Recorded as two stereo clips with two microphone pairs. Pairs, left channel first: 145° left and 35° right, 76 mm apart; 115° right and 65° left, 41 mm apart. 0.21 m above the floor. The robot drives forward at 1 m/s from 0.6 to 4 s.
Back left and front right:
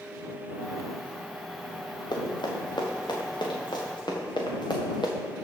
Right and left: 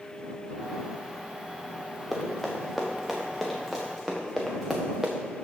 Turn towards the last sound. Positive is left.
turn(degrees=145)